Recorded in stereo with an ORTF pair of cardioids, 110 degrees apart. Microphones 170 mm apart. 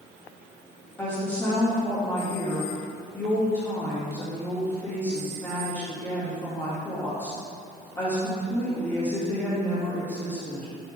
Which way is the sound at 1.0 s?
15° left.